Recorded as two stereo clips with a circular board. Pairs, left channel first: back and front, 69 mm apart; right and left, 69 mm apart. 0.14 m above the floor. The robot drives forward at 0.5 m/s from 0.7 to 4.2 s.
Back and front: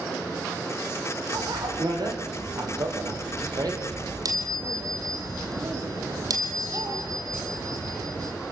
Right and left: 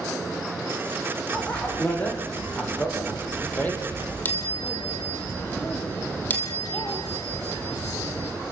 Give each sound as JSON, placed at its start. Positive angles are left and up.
{"t": 1.3, "sound": "a bicycle bell", "azimuth_deg": -20, "distance_m": 5.0}